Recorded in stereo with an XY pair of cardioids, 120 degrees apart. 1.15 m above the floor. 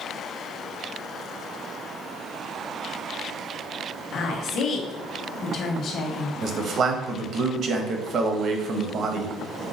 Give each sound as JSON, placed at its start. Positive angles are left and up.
{"t": 4.1, "sound": "a woman speaking", "azimuth_deg": 60, "distance_m": 1.3}
{"t": 6.4, "sound": "a man speaking", "azimuth_deg": -50, "distance_m": 1.0}